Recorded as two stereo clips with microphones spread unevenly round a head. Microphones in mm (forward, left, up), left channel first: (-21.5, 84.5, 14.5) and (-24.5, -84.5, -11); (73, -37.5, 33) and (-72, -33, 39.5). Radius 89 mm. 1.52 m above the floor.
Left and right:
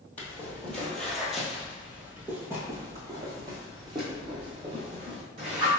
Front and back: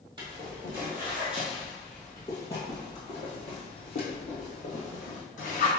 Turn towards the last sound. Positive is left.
turn(degrees=-30)